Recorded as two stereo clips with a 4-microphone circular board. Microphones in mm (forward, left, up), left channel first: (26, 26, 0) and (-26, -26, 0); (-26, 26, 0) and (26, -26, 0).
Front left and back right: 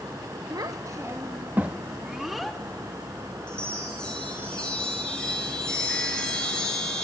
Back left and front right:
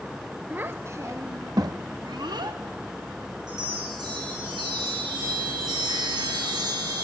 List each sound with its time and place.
0.5 s a child speaking: 110° right, 1.1 m; by 2.6 s 45° right, 1.5 m
3.5 s a chime: 35° right, 7 m